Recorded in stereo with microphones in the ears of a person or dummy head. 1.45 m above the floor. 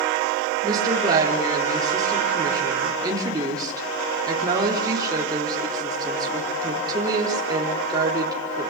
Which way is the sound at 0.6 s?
30° right (ahead or behind).